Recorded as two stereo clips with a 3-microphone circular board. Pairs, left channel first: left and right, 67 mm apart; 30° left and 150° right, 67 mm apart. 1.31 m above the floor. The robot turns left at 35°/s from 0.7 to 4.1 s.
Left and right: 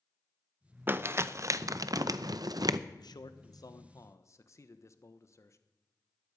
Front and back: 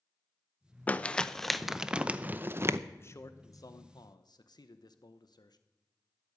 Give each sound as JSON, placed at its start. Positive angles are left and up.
{"t": 0.9, "sound": "crumpling", "azimuth_deg": -35, "distance_m": 0.6}
{"t": 3.0, "sound": "a man speaking", "azimuth_deg": 85, "distance_m": 1.1}